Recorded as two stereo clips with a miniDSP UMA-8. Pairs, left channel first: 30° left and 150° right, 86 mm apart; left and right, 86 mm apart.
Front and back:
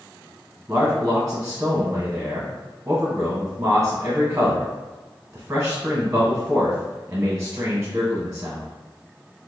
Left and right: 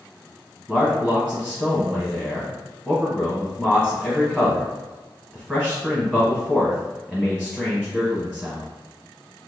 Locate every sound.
0.7 s a man speaking: straight behind, 1.1 m